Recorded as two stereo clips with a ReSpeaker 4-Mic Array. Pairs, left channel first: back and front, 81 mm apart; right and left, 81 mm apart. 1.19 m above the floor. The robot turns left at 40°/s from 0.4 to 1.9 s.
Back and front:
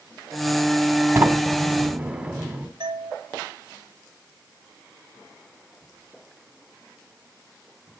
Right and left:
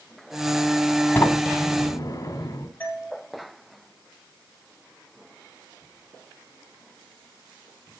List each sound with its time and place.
1.1 s a sliding door: 40° right, 1.4 m; by 2.7 s 70° right, 1.4 m
2.8 s a doorbell: 20° right, 10 m